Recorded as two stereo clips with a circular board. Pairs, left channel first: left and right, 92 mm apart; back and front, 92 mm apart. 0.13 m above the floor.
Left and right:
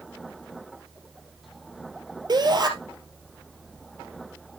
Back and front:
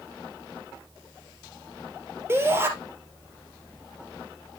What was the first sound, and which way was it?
A shout, 60° right.